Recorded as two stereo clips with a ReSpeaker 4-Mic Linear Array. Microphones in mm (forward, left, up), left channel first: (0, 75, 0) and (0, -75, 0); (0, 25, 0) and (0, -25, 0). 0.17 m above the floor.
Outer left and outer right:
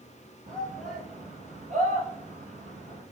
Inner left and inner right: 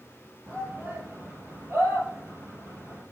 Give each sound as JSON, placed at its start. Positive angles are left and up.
{"t": 0.5, "sound": "a shout", "side_deg": -55, "distance_m": 4.0}